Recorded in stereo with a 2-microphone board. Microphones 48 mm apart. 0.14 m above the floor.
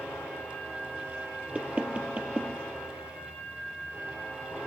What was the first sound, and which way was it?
Knocking, 30° right (ahead or behind).